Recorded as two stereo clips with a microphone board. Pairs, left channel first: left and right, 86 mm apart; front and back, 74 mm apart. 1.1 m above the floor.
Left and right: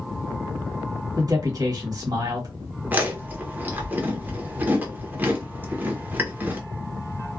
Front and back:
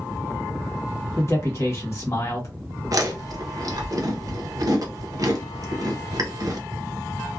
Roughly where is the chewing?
Behind right.